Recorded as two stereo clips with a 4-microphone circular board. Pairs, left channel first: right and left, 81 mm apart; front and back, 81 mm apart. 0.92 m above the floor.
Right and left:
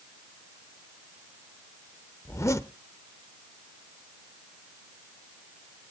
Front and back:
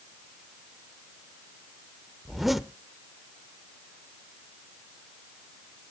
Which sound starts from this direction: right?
A zipper, at 2.2 s.